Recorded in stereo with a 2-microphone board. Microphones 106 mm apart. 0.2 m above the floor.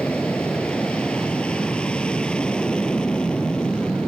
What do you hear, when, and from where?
0.0 s an aircraft: 10° left (ahead or behind)